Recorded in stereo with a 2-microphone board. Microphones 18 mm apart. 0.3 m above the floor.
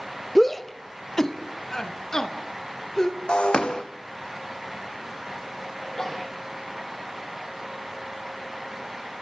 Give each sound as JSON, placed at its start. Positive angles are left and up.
{"t": 0.3, "sound": "a shout", "side_deg": 5, "distance_m": 0.9}
{"t": 3.3, "sound": "breaking glass", "side_deg": 60, "distance_m": 2.5}
{"t": 5.8, "sound": "a sneeze", "side_deg": 20, "distance_m": 8.5}